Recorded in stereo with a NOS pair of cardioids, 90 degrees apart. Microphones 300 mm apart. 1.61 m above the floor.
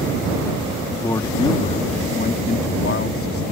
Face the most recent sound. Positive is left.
turn(degrees=50)